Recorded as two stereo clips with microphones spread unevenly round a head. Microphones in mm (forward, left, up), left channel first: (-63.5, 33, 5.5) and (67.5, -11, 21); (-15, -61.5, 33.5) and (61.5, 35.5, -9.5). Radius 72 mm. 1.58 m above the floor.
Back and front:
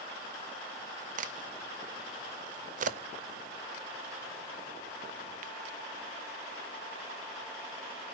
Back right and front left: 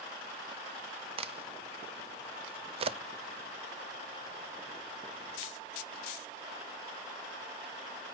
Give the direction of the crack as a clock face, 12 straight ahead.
11 o'clock.